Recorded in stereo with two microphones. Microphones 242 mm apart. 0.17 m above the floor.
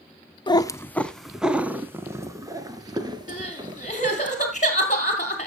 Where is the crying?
30° left (ahead or behind), 2.5 m.